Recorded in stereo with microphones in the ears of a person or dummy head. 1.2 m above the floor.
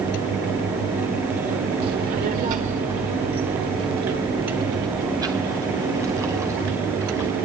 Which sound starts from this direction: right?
A child speaking, at 1.8 s.